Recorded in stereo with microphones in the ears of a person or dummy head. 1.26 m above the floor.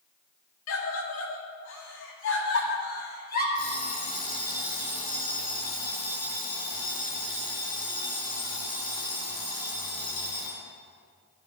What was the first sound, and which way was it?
A scream, 80° left.